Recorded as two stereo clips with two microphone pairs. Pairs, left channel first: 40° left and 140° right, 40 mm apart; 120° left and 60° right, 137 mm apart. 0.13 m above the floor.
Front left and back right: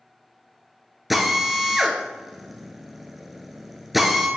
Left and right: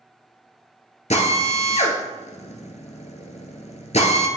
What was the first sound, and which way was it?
A drill, 135° left.